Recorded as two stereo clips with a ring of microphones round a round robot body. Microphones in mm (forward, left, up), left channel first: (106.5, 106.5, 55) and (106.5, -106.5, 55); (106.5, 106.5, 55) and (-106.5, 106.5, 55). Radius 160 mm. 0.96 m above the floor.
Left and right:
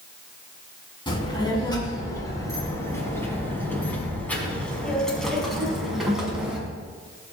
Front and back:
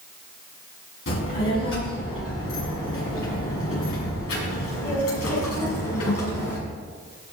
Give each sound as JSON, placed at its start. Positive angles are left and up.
{"t": 1.1, "sound": "a child speaking", "azimuth_deg": 20, "distance_m": 6.0}